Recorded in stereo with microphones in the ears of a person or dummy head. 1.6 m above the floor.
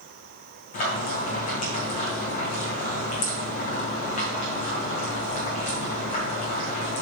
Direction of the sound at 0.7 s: 35° left (ahead or behind).